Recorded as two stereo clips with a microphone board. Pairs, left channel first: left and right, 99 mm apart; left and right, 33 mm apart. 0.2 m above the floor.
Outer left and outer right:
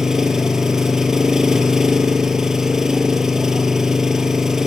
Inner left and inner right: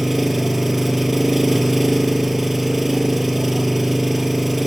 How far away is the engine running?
About 1.7 m.